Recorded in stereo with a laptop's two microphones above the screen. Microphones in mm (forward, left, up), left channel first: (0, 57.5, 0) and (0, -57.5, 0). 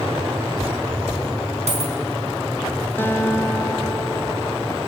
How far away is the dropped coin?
About 3.5 m.